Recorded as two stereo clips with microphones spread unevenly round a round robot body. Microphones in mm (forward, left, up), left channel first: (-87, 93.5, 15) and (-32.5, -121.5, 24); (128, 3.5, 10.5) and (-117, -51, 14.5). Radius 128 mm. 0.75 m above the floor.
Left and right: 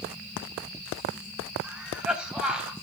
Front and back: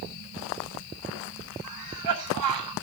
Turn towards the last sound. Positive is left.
turn(degrees=-160)